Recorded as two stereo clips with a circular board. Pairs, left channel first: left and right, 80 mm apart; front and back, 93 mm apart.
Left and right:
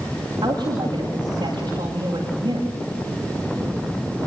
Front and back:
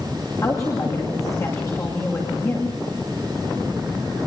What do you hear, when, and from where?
0.4 s a woman speaking: 55° right, 9.5 m